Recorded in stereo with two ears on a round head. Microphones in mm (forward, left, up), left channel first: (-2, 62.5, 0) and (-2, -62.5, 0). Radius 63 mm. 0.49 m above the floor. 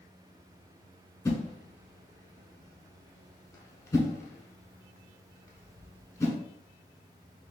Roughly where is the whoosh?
Left.